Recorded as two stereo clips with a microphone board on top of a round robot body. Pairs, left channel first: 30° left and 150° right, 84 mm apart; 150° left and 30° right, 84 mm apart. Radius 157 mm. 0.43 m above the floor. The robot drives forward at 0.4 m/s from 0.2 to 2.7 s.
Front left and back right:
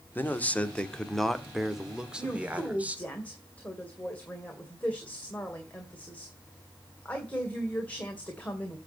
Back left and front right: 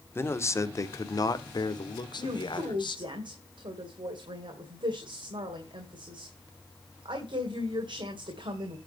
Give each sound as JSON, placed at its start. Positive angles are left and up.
{"t": 0.1, "sound": "a man speaking", "azimuth_deg": 95, "distance_m": 1.2}
{"t": 2.2, "sound": "a woman speaking", "azimuth_deg": -40, "distance_m": 2.5}